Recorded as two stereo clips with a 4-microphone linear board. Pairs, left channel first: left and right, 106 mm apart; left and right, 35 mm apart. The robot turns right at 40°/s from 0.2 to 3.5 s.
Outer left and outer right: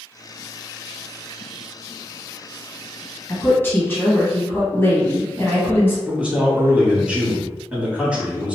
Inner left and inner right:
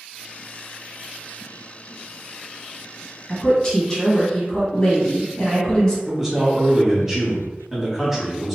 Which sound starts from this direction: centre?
A man speaking, at 6.1 s.